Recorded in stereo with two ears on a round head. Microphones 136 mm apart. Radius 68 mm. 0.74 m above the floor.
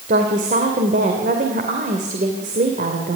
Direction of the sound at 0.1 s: 55° right (ahead or behind).